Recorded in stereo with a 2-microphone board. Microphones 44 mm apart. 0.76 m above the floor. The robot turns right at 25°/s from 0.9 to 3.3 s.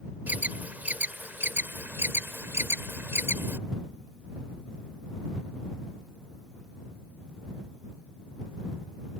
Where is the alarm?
45° right (ahead or behind); by 3.6 s 70° right (ahead or behind).